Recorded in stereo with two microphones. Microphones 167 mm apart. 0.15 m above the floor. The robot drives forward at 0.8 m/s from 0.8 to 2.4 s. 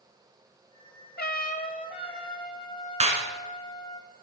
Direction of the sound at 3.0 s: 40° right (ahead or behind).